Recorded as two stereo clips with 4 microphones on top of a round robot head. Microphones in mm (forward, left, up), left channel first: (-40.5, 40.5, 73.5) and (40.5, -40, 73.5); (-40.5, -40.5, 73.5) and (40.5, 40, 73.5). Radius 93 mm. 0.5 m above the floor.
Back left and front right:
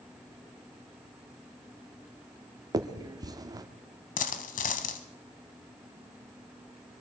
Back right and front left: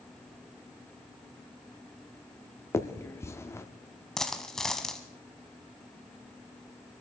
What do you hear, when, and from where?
2.7 s a finger snap: 80° right, 1.0 m
4.2 s a dropped coin: 140° left, 0.9 m